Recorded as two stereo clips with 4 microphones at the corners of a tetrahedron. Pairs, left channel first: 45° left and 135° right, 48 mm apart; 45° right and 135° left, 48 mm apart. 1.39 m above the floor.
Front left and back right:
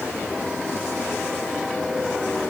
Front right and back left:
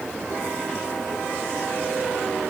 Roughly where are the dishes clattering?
No dishes clattering in this recording.